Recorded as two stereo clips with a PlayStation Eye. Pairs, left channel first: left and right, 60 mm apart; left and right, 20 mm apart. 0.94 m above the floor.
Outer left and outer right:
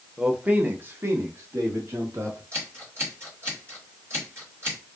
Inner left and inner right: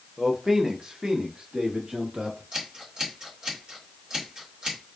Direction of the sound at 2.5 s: 45° right (ahead or behind).